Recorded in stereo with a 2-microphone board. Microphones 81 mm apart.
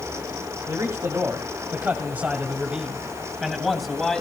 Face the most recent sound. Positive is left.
turn(degrees=5)  # may be behind; listen again after turning